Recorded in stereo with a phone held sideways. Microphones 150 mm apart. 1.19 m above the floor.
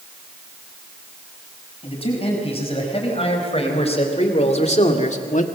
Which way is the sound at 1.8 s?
40° left (ahead or behind).